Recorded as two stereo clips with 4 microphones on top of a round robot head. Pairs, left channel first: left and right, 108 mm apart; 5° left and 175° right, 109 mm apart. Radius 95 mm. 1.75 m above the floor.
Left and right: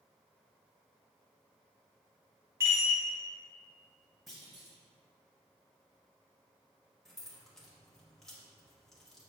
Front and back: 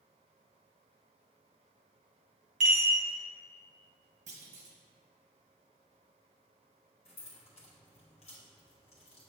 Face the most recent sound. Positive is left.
turn(degrees=5)